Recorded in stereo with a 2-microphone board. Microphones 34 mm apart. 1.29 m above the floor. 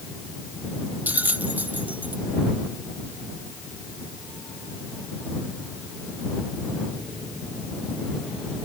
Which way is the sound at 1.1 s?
65° right (ahead or behind).